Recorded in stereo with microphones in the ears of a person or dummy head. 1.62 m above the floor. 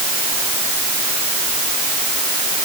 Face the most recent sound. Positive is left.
No sound to turn to.